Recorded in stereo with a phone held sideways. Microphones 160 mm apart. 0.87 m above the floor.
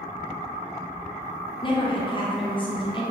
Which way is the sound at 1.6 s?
30° left (ahead or behind).